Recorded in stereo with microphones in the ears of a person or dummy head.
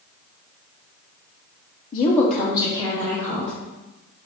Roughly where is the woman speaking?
Left.